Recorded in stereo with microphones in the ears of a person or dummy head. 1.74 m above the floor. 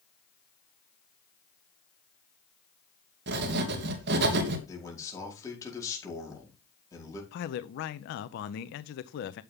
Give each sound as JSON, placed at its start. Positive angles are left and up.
{"t": 3.3, "sound": "writing", "side_deg": -65, "distance_m": 1.8}
{"t": 4.7, "sound": "a man speaking", "side_deg": 20, "distance_m": 5.0}
{"t": 7.3, "sound": "a man speaking", "side_deg": 60, "distance_m": 0.7}